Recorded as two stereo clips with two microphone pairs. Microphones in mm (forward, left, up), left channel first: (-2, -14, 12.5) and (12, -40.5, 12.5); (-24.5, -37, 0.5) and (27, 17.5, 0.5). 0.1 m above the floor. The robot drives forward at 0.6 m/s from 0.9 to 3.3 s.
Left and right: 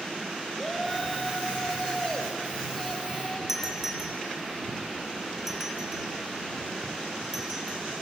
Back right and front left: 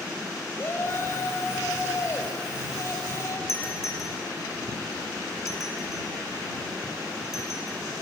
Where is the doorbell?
135° right, 3 m.